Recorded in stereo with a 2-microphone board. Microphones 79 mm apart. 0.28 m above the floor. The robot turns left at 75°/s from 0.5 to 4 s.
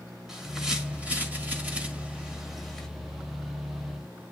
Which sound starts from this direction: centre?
A bird, at 0.3 s.